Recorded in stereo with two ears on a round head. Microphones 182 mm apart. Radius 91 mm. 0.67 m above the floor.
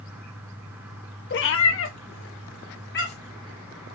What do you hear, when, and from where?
1.3 s a cat meowing: 55° left (ahead or behind), 0.5 m